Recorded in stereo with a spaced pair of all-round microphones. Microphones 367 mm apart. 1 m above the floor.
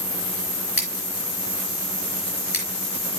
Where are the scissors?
75° left (ahead or behind), 4.5 m.